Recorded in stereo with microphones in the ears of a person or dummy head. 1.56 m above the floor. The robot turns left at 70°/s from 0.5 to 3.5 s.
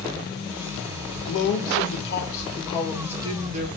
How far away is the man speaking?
About 1.0 m.